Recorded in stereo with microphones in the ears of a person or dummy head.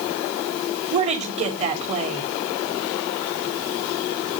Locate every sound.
0.9 s a woman speaking: 25° right (ahead or behind), 2 m